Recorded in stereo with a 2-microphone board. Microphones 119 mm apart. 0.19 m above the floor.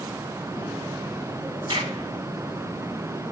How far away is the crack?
About 2.5 m.